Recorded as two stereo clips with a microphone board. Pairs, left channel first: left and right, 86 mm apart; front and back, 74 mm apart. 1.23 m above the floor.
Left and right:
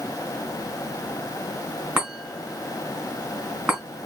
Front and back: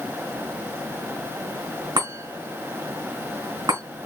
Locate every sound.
2.0 s a chime: 160° right, 3.5 m